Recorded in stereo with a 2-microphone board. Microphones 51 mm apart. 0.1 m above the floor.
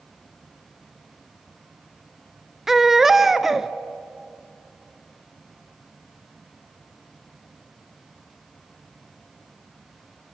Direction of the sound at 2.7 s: 5° right (ahead or behind).